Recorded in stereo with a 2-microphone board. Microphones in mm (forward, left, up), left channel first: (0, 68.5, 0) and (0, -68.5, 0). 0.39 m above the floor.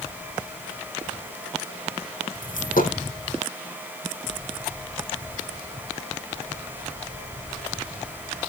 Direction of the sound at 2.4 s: 75° left (ahead or behind).